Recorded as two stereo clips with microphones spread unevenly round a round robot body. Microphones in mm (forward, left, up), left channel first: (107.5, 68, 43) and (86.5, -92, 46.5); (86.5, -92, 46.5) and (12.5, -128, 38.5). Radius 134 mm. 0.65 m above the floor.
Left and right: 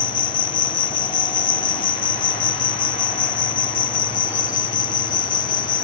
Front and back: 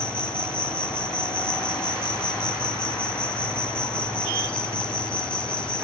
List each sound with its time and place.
0.0 s an insect: 105° left